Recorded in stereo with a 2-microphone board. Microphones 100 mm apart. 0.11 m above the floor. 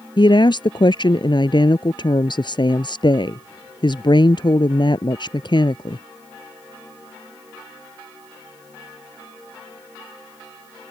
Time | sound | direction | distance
0.2 | a woman speaking | 50° left (ahead or behind) | ?